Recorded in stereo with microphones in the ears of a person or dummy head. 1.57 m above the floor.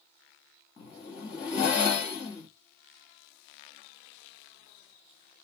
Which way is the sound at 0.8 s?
25° left (ahead or behind).